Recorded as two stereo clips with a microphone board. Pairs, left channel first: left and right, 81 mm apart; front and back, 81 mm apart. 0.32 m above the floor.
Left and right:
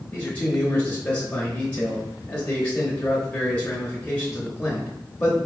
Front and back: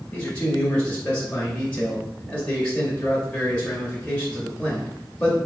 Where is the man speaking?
50° left, 1.0 m.